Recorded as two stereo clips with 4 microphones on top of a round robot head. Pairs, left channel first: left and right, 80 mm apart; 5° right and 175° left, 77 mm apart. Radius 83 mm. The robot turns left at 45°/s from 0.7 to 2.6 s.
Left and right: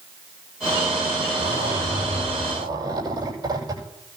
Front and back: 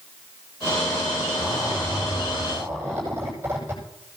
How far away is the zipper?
About 9.5 m.